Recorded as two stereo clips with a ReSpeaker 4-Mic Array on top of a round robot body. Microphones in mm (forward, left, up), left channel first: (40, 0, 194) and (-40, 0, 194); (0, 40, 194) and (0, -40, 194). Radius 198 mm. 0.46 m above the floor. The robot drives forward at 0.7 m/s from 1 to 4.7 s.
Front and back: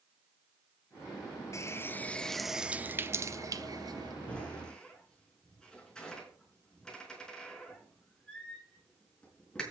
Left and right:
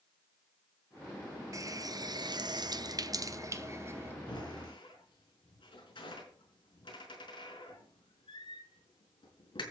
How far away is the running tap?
About 1.1 m.